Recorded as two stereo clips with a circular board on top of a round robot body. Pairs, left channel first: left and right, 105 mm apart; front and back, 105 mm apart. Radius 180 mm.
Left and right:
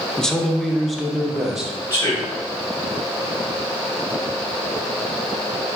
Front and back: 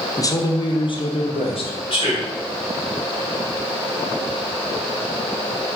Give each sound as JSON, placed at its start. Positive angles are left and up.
{"t": 0.2, "sound": "a man speaking", "azimuth_deg": 10, "distance_m": 0.8}
{"t": 1.9, "sound": "a man speaking", "azimuth_deg": 35, "distance_m": 2.5}